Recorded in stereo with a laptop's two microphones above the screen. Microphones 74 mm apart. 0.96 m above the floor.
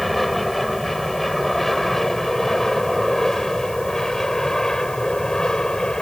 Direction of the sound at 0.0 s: Centre (ahead or behind).